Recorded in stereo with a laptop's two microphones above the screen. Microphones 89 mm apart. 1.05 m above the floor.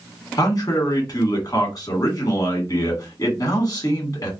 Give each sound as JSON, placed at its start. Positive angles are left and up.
{"t": 0.4, "sound": "a man speaking", "side_deg": 40, "distance_m": 1.7}